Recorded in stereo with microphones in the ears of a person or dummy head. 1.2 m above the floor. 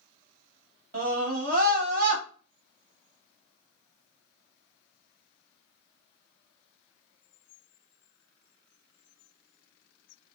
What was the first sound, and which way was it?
A scream, 55° right (ahead or behind).